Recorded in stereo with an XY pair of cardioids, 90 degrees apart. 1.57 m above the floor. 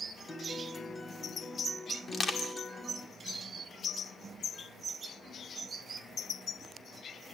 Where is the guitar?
25° left, 1.8 m.